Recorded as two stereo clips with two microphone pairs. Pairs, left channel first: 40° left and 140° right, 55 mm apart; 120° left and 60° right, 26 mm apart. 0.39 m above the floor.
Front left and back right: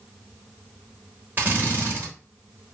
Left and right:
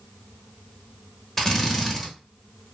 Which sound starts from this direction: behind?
A drill, at 1.4 s.